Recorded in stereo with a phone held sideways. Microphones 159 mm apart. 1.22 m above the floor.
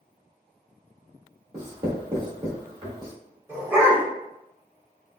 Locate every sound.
1.5 s writing: 30° right (ahead or behind), 1.7 m
3.5 s a dog barking: 15° right (ahead or behind), 1.4 m